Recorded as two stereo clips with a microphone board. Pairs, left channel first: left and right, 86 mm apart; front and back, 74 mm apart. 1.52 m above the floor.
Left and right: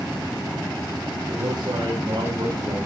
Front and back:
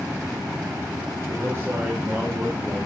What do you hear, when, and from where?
1.3 s a man speaking: 130° right, 4.5 m; by 2.8 s 120° right, 5 m